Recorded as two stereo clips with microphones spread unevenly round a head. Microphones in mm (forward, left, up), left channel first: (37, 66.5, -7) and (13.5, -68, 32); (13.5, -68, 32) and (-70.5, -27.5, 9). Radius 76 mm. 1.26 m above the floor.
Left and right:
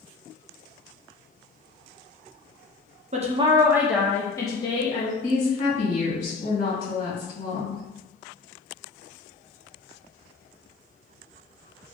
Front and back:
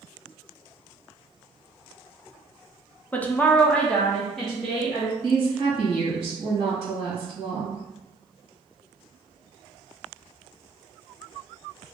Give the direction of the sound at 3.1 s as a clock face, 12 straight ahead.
4 o'clock.